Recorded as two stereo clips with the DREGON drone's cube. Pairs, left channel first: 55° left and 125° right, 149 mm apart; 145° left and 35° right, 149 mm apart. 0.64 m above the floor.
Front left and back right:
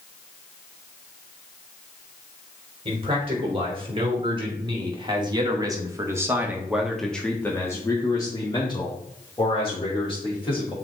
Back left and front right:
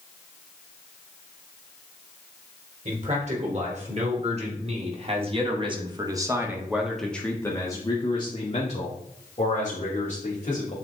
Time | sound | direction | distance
2.9 | a man speaking | 70° right | 3 m